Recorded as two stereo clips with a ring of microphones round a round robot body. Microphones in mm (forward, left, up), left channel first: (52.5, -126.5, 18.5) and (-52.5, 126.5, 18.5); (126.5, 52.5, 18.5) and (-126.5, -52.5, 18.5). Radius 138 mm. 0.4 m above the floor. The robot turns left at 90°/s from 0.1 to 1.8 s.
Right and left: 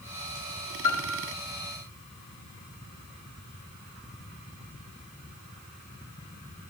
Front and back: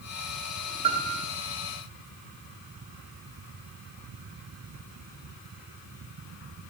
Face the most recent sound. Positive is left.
turn(degrees=-170)